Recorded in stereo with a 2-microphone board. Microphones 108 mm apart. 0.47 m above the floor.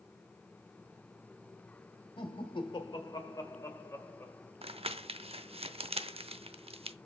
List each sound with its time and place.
2.2 s laughter: 55° left (ahead or behind), 1.9 m; by 4.5 s 15° left (ahead or behind), 2.5 m
4.6 s crumpling: 65° right (ahead or behind), 0.5 m